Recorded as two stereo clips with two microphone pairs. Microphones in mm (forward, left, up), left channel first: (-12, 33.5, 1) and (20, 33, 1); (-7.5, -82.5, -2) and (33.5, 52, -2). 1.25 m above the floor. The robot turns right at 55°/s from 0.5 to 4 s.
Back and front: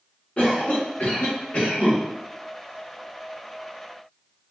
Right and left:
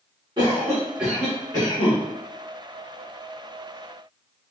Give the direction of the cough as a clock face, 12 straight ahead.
8 o'clock.